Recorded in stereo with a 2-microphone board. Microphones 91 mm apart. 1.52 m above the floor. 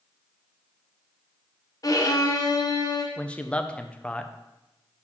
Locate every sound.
1.8 s a violin: 40° left (ahead or behind), 1.0 m
3.2 s a man speaking: 10° left (ahead or behind), 0.6 m